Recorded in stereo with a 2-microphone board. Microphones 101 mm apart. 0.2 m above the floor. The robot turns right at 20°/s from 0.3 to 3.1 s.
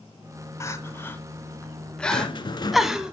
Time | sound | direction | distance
0.6 | crying | 25° left (ahead or behind) | 0.8 m
2.1 | a rattle | 50° left (ahead or behind) | 0.6 m